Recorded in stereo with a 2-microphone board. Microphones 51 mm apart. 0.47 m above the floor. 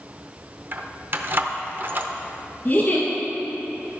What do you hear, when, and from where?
0.7 s keys jangling: 45° right (ahead or behind), 0.7 m
2.6 s a giggle: 30° left (ahead or behind), 2.5 m